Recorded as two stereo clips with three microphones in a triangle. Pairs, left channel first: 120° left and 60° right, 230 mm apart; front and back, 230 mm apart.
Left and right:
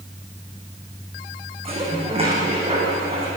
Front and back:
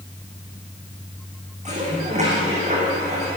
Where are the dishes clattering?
120° right, 6.5 m.